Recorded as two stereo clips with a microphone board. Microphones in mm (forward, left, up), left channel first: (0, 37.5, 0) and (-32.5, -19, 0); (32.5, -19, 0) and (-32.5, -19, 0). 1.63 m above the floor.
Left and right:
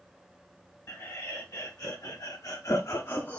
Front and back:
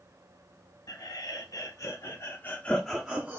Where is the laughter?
Straight ahead, 1.6 m; by 3.4 s 125° left, 0.8 m.